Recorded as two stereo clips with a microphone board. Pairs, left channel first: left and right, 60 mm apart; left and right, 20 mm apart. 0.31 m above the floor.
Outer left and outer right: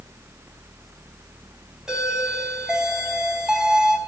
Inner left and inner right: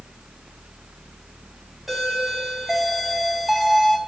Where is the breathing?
No breathing in this recording.